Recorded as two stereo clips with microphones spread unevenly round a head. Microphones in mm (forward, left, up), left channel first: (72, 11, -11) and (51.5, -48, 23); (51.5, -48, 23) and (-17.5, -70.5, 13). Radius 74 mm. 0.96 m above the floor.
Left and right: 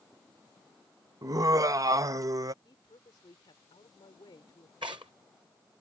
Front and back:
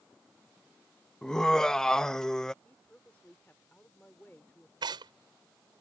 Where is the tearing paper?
160° right.